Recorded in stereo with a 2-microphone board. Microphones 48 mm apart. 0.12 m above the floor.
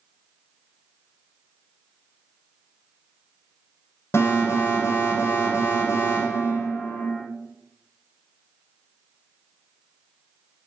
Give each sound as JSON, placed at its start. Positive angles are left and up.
{"t": 4.1, "sound": "an alarm", "side_deg": 60, "distance_m": 8.5}